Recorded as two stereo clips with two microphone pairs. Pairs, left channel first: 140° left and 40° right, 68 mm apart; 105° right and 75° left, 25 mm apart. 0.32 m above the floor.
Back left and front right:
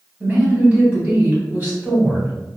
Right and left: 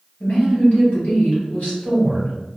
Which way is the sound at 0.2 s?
105° right.